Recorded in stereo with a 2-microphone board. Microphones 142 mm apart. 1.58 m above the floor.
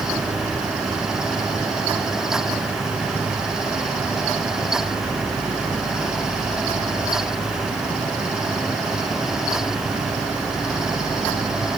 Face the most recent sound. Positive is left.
No sound to turn to.